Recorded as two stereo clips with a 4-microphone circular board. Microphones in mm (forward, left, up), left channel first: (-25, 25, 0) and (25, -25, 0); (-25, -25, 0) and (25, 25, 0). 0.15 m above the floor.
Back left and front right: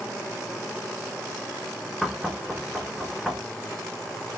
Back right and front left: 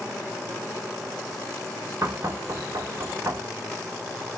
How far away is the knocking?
About 1.6 m.